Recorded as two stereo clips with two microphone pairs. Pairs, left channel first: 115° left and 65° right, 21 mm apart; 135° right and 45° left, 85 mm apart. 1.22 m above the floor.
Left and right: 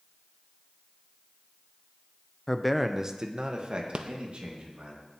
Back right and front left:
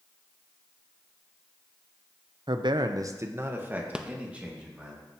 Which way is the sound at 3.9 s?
35° right.